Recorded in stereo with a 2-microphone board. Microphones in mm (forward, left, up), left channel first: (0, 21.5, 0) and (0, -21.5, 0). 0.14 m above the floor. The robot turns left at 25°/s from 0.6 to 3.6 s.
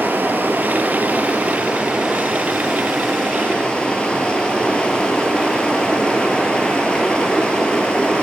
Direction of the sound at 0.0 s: 125° right.